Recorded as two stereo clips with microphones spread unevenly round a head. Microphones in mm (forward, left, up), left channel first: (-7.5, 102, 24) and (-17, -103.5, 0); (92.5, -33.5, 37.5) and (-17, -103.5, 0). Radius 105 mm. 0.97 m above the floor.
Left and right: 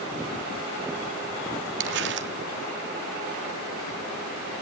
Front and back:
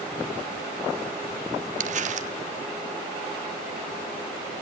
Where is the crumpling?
125° right, 1.2 m.